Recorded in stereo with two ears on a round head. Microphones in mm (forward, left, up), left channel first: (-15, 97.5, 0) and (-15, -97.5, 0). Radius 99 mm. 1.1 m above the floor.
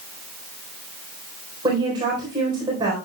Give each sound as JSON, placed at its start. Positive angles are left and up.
{"t": 1.6, "sound": "a woman speaking", "side_deg": -20, "distance_m": 4.0}